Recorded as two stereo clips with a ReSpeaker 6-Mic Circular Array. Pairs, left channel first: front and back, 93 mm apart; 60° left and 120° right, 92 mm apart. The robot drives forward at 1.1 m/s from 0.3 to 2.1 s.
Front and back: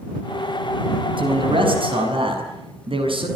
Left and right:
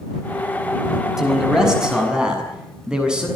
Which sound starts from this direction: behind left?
A man speaking, at 1.2 s.